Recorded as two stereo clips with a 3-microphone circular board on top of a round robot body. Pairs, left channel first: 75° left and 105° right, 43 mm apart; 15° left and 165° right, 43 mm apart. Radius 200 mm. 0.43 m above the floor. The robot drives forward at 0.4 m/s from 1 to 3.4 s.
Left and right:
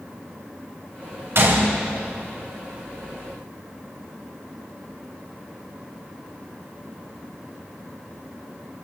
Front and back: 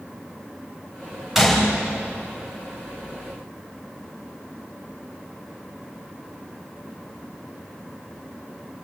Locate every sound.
1.4 s a gunshot: 80° right, 4.5 m